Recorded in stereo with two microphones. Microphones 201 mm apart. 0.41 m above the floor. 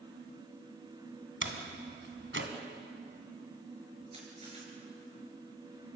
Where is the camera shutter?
30° right (ahead or behind), 6 m.